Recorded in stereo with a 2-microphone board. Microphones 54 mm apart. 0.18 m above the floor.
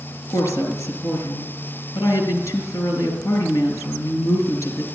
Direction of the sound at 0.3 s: 60° left (ahead or behind).